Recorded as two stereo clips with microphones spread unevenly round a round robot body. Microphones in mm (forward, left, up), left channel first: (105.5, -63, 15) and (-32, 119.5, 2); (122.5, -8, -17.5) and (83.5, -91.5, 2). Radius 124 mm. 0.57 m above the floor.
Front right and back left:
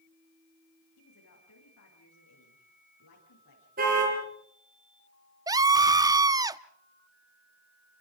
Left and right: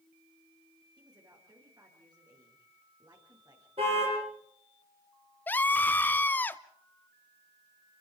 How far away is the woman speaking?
About 9 m.